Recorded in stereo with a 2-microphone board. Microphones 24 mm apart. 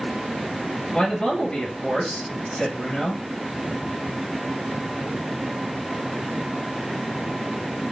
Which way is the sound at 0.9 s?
50° left (ahead or behind).